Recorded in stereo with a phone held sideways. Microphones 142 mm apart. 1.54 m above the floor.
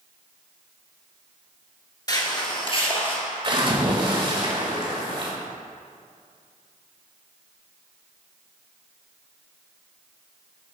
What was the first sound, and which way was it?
Footsteps, 30° left (ahead or behind).